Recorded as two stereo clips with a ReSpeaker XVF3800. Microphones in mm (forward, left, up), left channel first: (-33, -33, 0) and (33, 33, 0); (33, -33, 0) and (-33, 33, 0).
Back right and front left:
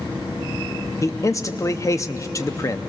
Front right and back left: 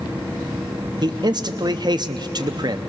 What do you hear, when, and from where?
1.0 s a man speaking: 170° left, 0.7 m